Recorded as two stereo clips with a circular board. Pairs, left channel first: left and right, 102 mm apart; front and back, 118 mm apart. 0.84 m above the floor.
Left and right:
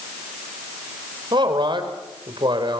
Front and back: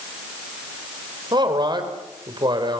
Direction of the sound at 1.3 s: 130° right.